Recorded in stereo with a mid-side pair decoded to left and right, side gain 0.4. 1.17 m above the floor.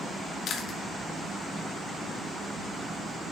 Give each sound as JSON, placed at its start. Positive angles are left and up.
{"t": 0.5, "sound": "chewing", "azimuth_deg": 65, "distance_m": 1.5}